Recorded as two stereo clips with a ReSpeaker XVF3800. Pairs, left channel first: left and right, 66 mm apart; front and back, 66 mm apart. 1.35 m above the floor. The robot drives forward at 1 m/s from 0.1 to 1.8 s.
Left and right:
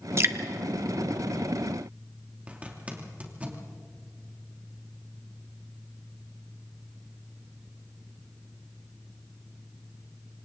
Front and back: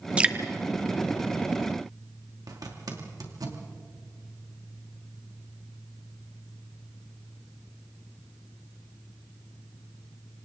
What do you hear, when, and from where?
0.2 s dripping: 110° right, 1.1 m; by 0.3 s 125° right, 1.2 m
2.5 s a zipper: 160° right, 2.5 m